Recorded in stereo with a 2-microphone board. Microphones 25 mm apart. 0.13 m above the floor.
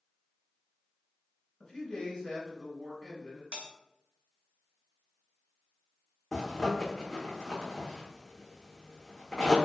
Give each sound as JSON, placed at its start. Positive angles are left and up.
{"t": 1.6, "sound": "a man speaking", "side_deg": 20, "distance_m": 1.5}
{"t": 3.5, "sound": "a bell", "side_deg": -70, "distance_m": 0.8}
{"t": 6.3, "sound": "a zipper", "side_deg": 20, "distance_m": 1.2}